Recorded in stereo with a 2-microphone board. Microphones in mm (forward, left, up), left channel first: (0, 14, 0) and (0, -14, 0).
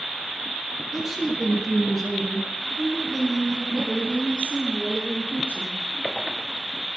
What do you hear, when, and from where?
0.9 s a woman speaking: 15° right (ahead or behind), 3.5 m; by 5.8 s 50° left (ahead or behind), 7.5 m